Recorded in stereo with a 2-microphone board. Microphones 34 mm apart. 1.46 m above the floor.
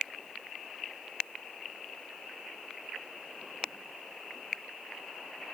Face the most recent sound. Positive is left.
No sound to turn to.